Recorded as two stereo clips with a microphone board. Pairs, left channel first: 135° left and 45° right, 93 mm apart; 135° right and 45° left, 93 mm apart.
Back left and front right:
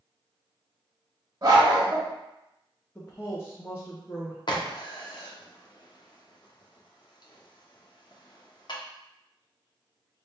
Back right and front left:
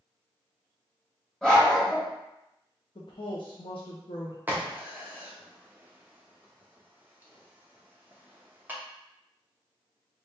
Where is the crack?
115° left, 0.8 m.